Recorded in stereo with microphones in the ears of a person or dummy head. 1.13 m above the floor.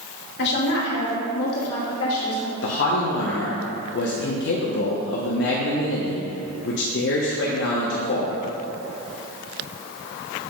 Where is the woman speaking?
60° left (ahead or behind), 2 m; by 2.5 s 75° left (ahead or behind), 2.5 m.